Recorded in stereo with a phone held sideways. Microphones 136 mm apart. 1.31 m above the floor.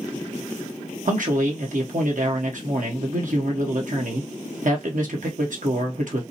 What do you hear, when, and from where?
1.1 s a man speaking: 65° right (ahead or behind), 1.3 m